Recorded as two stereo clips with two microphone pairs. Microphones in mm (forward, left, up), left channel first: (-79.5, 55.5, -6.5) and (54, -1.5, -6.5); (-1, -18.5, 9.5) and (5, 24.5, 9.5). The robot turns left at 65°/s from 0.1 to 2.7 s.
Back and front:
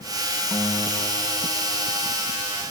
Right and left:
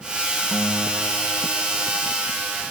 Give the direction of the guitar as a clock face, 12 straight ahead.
4 o'clock.